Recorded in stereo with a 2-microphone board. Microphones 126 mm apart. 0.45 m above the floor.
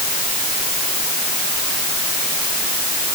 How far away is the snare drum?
I don't hear a snare drum.